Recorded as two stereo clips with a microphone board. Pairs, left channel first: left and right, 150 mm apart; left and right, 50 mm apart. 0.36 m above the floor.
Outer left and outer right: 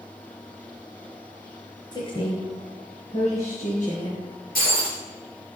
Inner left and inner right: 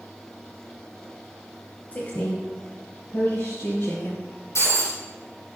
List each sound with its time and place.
1.9 s a woman speaking: 30° left (ahead or behind), 1.6 m; by 4.2 s 55° left (ahead or behind), 4 m
4.5 s breaking glass: 75° left (ahead or behind), 5 m